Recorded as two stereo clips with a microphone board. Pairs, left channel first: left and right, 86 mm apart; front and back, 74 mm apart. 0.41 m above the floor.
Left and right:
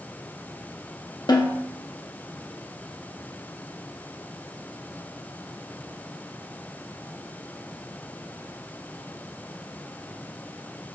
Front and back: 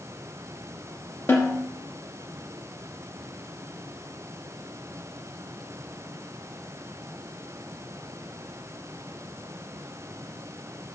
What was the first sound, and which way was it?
A snare drum, 55° left.